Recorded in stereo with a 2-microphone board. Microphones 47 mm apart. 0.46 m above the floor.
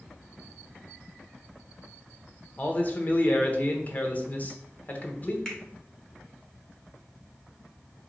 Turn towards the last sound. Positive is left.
turn(degrees=15)  # may be behind; listen again after turning